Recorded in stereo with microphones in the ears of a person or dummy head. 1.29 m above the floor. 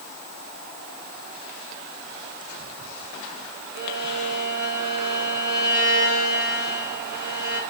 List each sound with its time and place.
3.8 s a violin: 55° right (ahead or behind), 4 m